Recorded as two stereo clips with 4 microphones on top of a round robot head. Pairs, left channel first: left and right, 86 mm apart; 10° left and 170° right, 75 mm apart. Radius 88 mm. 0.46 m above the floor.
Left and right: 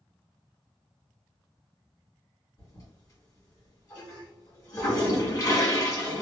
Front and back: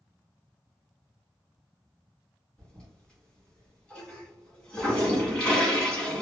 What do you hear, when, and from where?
2.6 s a toilet flushing: 80° left, 1.5 m